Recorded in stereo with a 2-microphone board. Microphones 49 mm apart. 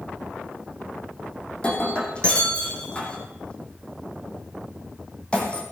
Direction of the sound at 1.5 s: 20° left (ahead or behind).